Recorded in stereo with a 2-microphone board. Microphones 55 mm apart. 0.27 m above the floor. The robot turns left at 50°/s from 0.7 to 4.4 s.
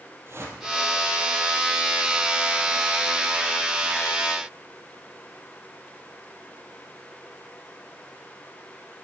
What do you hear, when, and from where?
0.3 s a whoosh: 50° right (ahead or behind), 2 m